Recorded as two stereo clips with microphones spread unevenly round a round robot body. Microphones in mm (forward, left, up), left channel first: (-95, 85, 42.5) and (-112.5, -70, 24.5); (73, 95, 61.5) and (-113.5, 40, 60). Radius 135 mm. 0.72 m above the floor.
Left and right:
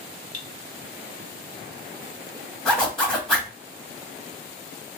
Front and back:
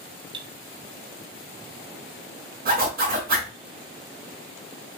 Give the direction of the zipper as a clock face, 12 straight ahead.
6 o'clock.